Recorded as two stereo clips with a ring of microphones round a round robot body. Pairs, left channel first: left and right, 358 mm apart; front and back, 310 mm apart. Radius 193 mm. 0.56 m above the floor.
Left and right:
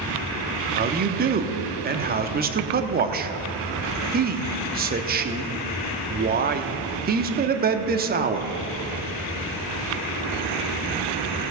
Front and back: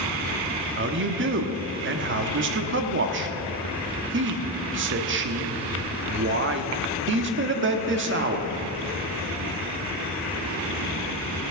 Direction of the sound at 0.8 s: 145° right.